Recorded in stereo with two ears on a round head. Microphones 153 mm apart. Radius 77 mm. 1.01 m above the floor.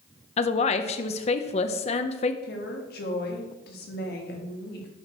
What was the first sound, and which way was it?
A woman speaking, 35° left (ahead or behind).